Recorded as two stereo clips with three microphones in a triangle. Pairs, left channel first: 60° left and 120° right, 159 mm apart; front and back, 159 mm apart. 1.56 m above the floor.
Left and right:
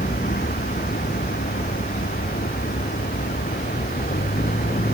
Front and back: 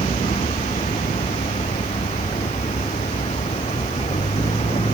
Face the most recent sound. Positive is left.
turn(degrees=45)